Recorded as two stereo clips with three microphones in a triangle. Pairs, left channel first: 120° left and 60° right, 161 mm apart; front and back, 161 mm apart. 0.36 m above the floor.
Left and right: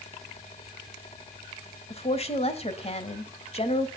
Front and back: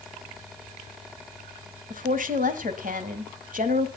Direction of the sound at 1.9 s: 165° left.